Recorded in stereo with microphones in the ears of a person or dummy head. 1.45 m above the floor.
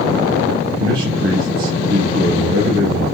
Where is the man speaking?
65° right (ahead or behind), 4 m.